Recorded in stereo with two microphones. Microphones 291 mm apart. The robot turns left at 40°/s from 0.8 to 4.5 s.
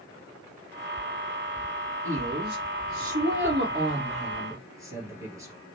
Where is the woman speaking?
70° right, 2.5 m; by 5.5 s 165° right, 2.5 m.